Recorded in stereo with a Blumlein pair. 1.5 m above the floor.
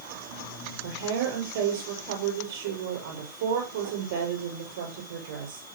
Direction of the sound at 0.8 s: 50° right.